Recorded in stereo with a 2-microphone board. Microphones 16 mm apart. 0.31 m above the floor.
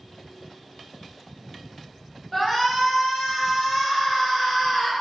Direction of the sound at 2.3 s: 10° left (ahead or behind).